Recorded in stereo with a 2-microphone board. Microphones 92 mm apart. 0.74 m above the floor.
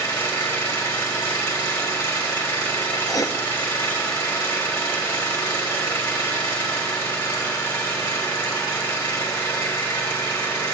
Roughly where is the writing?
Left.